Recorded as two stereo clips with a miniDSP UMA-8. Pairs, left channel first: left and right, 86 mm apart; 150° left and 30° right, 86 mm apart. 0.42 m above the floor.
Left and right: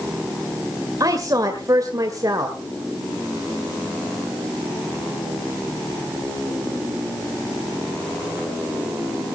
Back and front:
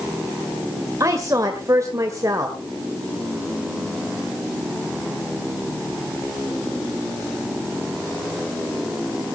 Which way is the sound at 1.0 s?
65° right.